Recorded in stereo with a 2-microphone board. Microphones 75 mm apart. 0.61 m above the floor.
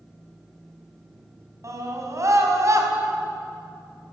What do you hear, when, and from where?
1.6 s a scream: 45° right (ahead or behind), 5 m